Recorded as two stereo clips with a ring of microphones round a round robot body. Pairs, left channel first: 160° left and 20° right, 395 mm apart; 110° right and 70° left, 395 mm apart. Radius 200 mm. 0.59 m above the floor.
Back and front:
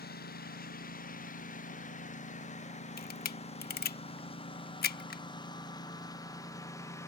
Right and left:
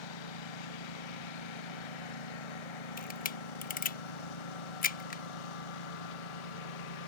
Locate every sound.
0.0 s a lawn mower: 135° right; by 7.1 s 120° right
3.0 s a camera shutter: 160° right